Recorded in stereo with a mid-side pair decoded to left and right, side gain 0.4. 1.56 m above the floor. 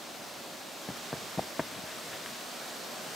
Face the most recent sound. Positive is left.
turn(degrees=20)